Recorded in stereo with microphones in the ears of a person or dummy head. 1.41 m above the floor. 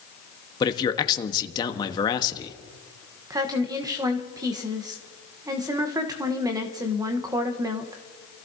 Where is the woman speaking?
20° right (ahead or behind), 1.1 m.